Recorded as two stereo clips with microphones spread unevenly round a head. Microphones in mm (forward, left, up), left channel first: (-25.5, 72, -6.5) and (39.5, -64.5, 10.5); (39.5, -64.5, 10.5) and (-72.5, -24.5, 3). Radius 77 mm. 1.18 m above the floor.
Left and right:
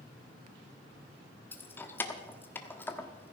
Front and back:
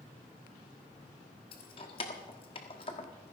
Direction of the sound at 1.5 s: 35° left.